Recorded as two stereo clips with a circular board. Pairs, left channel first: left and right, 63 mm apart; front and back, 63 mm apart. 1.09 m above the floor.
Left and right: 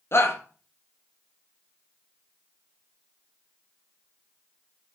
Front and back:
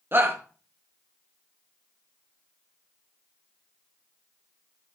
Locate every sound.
0.1 s a shout: 130° left, 2 m